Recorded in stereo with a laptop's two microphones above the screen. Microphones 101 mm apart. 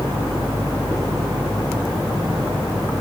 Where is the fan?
55° right (ahead or behind), 1.7 m.